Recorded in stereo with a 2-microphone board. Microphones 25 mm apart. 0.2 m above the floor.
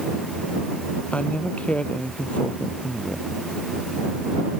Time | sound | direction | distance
1.1 | a man speaking | 60° left (ahead or behind) | ?